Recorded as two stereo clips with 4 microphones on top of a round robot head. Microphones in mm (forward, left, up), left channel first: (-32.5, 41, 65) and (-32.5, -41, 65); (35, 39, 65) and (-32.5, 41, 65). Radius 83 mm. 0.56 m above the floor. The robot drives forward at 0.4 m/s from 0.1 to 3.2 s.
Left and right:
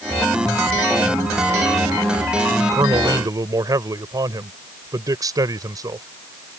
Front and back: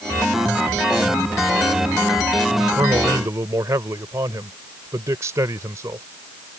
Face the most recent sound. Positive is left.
turn(degrees=-130)